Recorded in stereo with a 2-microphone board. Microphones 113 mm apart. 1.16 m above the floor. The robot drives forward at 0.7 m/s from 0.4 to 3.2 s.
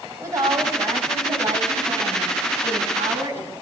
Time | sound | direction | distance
0.2 | a woman speaking | 25° right (ahead or behind) | 9 m